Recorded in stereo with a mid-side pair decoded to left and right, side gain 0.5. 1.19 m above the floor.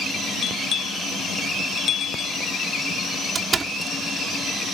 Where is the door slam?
35° right.